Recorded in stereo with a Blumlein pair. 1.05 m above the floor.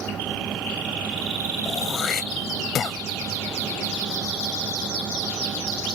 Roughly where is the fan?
Ahead.